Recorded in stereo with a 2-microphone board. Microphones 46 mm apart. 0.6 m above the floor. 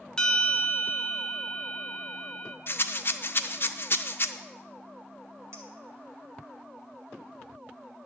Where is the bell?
15° left (ahead or behind), 1.1 m.